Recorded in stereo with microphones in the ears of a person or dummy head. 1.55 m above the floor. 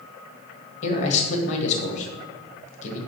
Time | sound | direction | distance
0.8 | a man speaking | 40° left (ahead or behind) | 1.5 m